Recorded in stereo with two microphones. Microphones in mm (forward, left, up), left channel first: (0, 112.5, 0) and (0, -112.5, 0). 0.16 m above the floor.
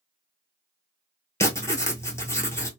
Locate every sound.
1.4 s writing: 10° left (ahead or behind), 0.9 m